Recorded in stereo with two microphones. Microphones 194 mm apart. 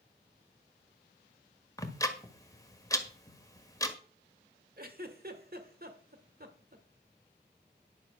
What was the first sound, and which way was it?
Ticking, 15° left (ahead or behind).